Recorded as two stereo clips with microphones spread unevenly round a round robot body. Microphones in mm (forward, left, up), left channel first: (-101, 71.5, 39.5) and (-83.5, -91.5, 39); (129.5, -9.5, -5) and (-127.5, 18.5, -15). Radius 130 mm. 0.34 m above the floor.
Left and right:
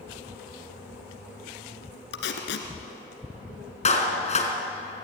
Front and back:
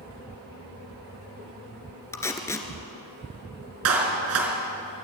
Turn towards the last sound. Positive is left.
turn(degrees=140)